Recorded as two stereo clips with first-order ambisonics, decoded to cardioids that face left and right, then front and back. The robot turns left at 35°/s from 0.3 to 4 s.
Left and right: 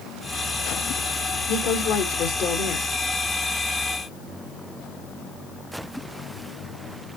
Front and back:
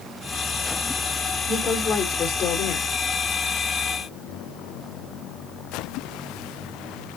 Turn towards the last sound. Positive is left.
turn(degrees=5)